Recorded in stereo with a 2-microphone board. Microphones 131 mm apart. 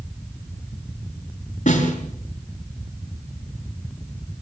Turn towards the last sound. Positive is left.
turn(degrees=75)  # may be behind; listen again after turning